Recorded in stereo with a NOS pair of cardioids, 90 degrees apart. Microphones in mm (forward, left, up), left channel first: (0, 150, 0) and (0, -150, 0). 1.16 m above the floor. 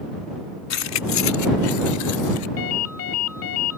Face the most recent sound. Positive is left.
turn(degrees=50)